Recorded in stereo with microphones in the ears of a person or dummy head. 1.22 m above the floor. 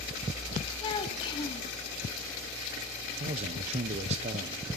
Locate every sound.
0.8 s a child speaking: 30° left (ahead or behind), 1.2 m
3.2 s a man speaking: 35° right (ahead or behind), 0.7 m